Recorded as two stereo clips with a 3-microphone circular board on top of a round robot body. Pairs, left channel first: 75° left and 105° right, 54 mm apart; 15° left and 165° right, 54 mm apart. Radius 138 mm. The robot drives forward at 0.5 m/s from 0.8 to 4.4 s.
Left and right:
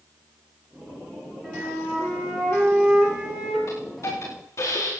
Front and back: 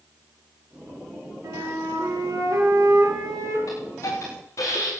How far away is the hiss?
About 9 m.